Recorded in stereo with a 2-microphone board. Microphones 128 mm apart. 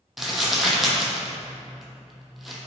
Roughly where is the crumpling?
Centre.